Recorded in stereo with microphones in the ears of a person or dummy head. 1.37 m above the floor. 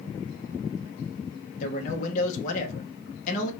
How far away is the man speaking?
About 0.7 m.